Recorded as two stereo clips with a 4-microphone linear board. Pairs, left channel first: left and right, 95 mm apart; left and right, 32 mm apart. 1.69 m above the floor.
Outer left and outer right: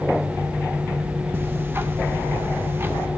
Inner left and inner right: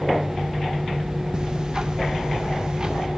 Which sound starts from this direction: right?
Ticking, at 1.3 s.